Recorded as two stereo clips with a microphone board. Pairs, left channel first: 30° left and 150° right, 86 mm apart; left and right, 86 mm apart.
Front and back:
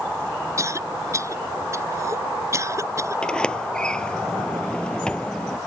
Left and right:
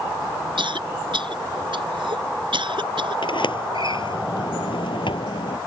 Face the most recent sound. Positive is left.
turn(degrees=110)